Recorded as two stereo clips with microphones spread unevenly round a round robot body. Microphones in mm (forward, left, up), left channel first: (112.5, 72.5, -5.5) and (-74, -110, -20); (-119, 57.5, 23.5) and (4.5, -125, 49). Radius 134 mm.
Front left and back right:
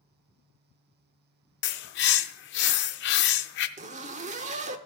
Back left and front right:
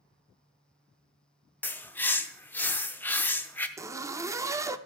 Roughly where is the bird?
Ahead left.